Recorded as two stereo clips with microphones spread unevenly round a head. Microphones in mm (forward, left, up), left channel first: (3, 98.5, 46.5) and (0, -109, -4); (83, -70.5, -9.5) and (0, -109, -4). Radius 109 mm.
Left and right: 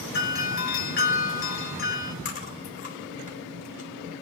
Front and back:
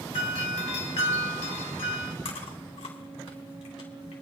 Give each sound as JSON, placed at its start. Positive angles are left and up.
{"t": 0.1, "sound": "a doorbell", "azimuth_deg": 45, "distance_m": 2.0}
{"t": 2.2, "sound": "chewing", "azimuth_deg": 35, "distance_m": 2.5}